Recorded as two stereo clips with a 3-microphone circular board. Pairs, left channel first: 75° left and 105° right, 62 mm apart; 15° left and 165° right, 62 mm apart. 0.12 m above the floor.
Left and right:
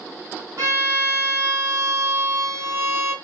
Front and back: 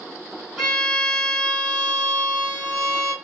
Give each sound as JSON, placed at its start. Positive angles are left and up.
{"t": 0.6, "sound": "a violin", "azimuth_deg": -70, "distance_m": 1.9}